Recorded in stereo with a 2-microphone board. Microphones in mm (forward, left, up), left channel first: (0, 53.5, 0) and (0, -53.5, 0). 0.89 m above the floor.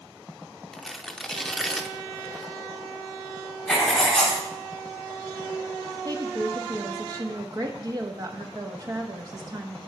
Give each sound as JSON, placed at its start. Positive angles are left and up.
{"t": 0.7, "sound": "tearing paper", "side_deg": 5, "distance_m": 0.8}
{"t": 3.7, "sound": "writing", "side_deg": 5, "distance_m": 3.0}
{"t": 6.0, "sound": "a woman speaking", "side_deg": -40, "distance_m": 1.1}